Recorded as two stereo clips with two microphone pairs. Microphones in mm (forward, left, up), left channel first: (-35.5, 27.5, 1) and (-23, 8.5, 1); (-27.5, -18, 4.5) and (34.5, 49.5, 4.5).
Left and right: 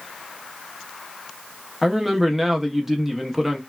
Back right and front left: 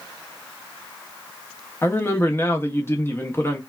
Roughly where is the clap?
I don't hear a clap.